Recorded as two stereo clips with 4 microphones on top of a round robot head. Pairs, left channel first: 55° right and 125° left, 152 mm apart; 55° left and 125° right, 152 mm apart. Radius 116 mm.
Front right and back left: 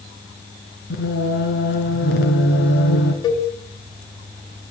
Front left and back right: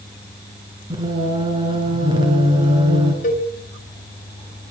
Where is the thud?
I don't hear a thud.